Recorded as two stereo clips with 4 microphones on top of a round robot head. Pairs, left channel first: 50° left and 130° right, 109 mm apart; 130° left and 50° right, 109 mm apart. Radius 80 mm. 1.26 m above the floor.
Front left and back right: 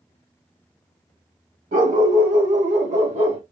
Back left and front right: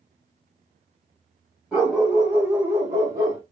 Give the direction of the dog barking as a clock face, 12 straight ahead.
4 o'clock.